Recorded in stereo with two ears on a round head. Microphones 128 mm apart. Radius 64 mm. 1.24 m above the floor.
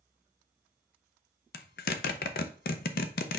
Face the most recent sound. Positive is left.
turn(degrees=75)  # may be behind; listen again after turning